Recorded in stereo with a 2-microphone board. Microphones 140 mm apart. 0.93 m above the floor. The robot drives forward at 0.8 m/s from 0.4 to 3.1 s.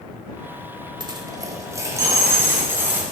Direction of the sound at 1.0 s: 30° right (ahead or behind).